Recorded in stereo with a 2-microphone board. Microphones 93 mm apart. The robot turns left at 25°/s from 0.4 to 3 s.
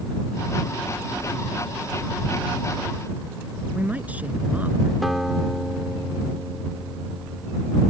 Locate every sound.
3.7 s a woman speaking: 15° right (ahead or behind)
5.0 s a guitar: centre (ahead or behind)